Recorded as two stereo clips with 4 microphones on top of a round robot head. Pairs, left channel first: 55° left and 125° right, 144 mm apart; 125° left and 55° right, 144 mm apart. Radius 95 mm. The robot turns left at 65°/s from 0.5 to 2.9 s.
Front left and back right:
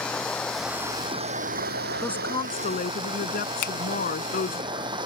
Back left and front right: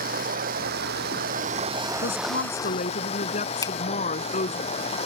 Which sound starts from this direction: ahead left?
A finger snap, at 3.6 s.